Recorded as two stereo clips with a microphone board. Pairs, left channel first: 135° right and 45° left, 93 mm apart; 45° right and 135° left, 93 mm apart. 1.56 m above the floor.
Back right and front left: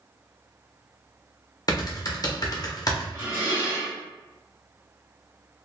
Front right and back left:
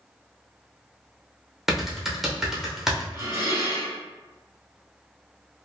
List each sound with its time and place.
1.7 s typing on a keyboard: 140° right, 0.7 m
3.1 s dishes clattering: 85° left, 1.5 m